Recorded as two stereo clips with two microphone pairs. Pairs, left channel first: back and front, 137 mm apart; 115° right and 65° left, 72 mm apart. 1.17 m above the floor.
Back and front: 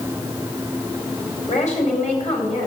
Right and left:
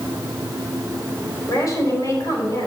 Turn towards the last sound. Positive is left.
turn(degrees=-155)